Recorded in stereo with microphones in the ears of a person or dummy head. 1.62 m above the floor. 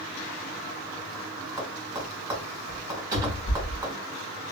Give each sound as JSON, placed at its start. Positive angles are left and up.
{"t": 1.6, "sound": "tapping", "side_deg": -20, "distance_m": 1.8}
{"t": 3.1, "sound": "a cupboard door", "side_deg": -25, "distance_m": 1.2}